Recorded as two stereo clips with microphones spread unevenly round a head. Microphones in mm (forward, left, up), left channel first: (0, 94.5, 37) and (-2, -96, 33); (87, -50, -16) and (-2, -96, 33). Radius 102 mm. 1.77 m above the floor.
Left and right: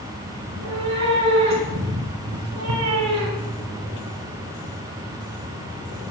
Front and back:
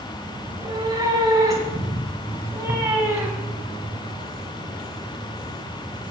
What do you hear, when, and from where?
0.5 s a cat meowing: 115° right, 5 m; by 3.6 s 90° right, 4 m